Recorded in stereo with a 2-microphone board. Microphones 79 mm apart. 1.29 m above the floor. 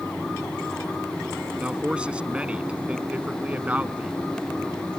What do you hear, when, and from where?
1.6 s a man speaking: 10° right (ahead or behind); by 4.1 s 15° right (ahead or behind)